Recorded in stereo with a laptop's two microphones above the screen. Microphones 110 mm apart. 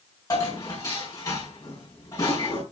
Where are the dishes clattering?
35° left (ahead or behind), 5.5 m.